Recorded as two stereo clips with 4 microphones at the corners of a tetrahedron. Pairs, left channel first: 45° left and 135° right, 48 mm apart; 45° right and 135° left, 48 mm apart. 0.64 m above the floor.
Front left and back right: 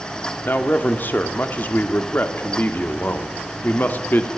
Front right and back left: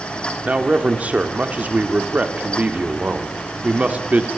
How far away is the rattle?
No rattle in this recording.